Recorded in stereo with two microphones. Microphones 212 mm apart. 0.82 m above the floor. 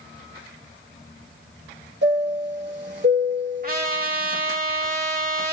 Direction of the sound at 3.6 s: 45° right (ahead or behind).